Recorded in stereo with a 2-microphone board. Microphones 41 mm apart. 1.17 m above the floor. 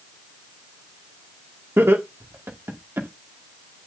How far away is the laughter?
About 2 m.